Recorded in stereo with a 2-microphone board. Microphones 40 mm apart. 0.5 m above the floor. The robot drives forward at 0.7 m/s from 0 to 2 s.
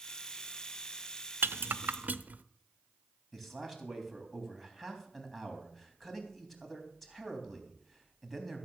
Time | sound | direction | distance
1.4 | a rattle | 65° right (ahead or behind) | 0.5 m
3.3 | a man speaking | centre (ahead or behind) | 3.5 m